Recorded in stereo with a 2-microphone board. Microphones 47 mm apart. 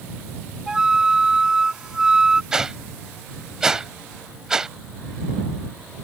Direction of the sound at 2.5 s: 15° right (ahead or behind).